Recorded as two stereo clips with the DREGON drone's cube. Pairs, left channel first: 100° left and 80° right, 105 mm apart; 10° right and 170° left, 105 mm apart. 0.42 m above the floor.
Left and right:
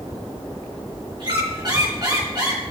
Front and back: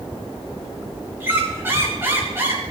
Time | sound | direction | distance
1.2 | a squeak | 120° right | 3.5 m